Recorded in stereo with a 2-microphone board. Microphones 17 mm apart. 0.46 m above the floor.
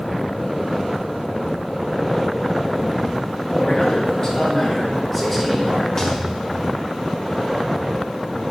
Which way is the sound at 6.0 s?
30° left (ahead or behind).